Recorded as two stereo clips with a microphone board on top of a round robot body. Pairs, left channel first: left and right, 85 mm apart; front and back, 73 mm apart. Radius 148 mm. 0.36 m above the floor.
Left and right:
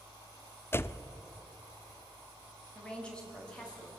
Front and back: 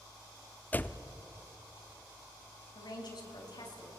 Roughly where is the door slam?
Ahead left.